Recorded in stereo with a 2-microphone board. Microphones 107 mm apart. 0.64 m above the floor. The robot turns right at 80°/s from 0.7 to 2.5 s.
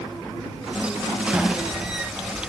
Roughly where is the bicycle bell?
Centre.